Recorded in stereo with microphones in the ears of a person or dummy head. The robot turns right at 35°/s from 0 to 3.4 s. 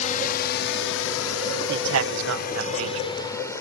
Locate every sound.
0.0 s a drone: 40° left (ahead or behind); by 3.6 s 15° left (ahead or behind)
1.7 s a man speaking: 120° right; by 3.1 s 70° right